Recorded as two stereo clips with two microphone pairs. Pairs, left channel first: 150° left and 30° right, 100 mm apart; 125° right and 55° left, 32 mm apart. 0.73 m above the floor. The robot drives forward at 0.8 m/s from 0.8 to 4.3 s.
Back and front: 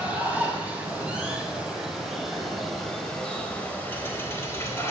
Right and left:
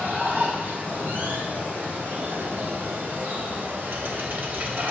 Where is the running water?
45° left, 4.5 m; by 4.9 s 80° left, 3 m.